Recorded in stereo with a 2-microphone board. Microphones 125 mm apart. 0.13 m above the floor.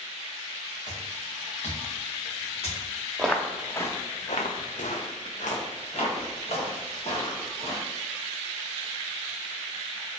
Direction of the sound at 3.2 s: Centre (ahead or behind).